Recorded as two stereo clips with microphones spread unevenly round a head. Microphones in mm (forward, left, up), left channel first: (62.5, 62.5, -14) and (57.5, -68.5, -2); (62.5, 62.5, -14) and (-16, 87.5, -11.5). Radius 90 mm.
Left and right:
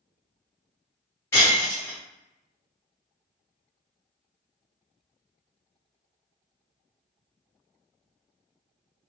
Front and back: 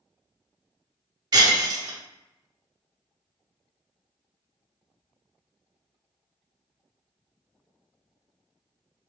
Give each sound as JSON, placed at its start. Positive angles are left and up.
{"t": 1.3, "sound": "breaking glass", "azimuth_deg": 160, "distance_m": 1.0}